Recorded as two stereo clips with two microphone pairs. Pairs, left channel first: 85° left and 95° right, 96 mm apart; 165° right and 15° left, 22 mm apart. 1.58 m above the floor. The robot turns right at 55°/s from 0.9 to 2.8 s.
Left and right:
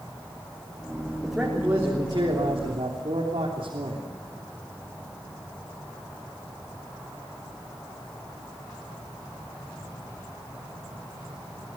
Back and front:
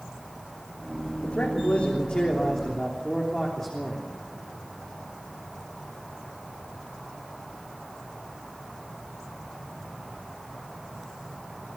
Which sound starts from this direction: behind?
A man speaking, at 1.2 s.